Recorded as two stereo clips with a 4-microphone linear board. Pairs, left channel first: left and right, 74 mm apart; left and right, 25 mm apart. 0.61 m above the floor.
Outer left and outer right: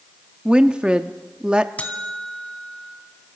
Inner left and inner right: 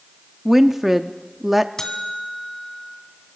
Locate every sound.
0.5 s a woman speaking: 10° right (ahead or behind), 0.7 m
1.8 s a buzzer: 20° left (ahead or behind), 1.9 m